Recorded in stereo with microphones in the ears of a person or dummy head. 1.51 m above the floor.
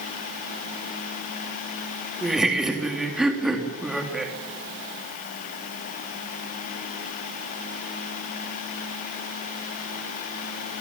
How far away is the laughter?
About 3.5 m.